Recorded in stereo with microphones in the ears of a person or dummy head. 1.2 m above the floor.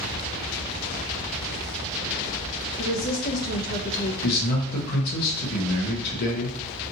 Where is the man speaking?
50° left (ahead or behind), 1.1 m.